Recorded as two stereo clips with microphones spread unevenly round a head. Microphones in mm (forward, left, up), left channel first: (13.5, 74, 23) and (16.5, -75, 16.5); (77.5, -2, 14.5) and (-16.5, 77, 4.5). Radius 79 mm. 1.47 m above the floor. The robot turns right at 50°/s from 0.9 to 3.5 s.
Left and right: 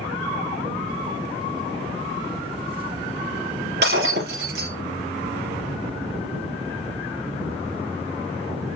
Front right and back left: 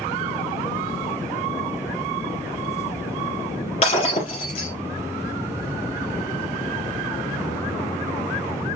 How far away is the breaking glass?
About 3 m.